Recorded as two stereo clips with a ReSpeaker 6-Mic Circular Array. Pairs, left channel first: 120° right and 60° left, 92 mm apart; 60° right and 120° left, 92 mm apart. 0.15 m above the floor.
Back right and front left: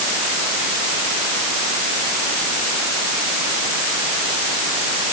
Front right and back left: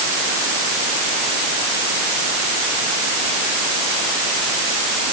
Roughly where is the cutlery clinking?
No cutlery clinking in this recording.